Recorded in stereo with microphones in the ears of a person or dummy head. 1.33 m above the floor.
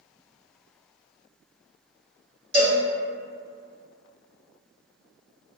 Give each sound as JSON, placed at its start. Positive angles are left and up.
{"t": 2.5, "sound": "a cowbell", "side_deg": -35, "distance_m": 1.8}